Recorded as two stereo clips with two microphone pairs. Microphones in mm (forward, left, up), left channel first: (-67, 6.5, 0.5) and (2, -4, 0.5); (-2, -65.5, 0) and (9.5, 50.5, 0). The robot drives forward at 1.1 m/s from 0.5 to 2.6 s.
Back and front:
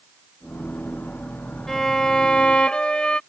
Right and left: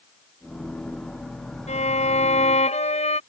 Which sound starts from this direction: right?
A violin, at 1.7 s.